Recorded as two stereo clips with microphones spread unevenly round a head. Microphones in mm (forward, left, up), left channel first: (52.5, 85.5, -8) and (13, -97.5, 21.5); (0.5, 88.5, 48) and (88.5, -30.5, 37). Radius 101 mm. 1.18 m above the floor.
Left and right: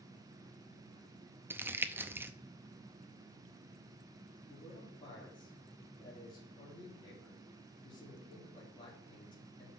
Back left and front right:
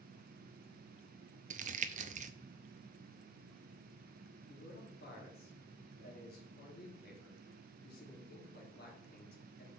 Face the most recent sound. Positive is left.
turn(degrees=145)